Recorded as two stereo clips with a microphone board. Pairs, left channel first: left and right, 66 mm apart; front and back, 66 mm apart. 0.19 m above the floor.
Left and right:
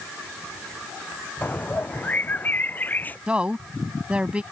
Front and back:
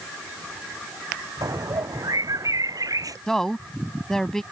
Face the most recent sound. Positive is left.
turn(degrees=-65)